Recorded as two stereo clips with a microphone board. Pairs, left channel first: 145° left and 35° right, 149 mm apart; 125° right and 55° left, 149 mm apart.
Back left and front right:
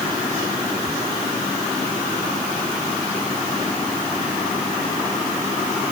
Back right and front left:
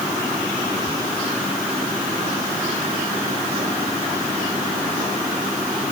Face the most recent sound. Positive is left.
No sound to turn to.